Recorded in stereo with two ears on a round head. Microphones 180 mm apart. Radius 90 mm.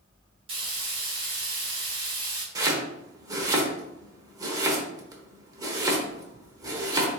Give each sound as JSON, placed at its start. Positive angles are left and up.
{"t": 0.5, "sound": "frying", "side_deg": -30, "distance_m": 1.5}
{"t": 2.5, "sound": "chopping", "side_deg": -15, "distance_m": 0.9}